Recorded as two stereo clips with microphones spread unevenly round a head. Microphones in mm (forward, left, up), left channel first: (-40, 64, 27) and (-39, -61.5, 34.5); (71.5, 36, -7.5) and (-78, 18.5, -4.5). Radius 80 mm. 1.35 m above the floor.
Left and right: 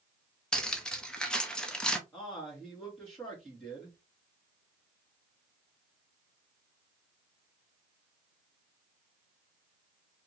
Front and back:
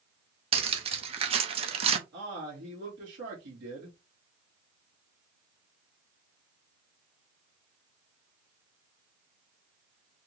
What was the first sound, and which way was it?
Cutlery clinking, 175° left.